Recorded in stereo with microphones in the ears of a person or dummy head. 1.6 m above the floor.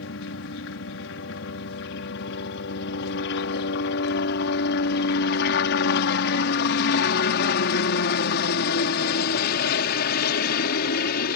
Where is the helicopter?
70° left (ahead or behind); by 11.4 s 55° left (ahead or behind).